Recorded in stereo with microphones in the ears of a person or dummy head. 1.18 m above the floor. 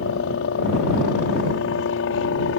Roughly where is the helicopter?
Left.